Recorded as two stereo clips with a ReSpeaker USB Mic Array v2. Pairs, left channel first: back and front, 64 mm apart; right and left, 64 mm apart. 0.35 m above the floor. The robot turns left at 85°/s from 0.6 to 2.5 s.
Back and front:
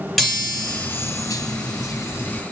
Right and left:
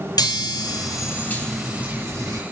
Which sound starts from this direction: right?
A chime, at 0.2 s.